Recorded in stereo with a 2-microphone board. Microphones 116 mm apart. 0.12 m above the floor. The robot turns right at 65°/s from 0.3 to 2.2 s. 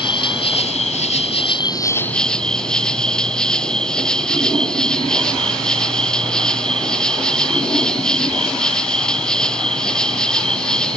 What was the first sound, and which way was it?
An insect, 50° left.